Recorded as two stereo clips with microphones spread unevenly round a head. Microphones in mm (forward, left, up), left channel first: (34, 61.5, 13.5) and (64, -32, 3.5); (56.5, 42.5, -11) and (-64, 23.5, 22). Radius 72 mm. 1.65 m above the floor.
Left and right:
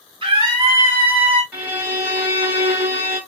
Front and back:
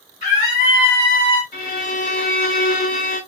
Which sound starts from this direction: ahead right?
A scream, at 0.2 s.